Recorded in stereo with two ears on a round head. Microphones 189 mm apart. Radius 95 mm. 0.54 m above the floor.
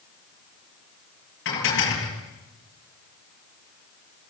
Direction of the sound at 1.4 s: 60° left (ahead or behind).